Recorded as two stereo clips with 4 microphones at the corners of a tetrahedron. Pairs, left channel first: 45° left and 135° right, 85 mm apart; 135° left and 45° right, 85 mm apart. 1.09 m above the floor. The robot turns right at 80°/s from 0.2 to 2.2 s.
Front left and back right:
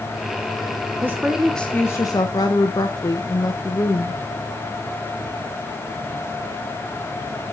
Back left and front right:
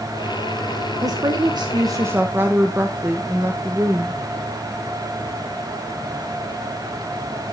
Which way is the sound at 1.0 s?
80° right.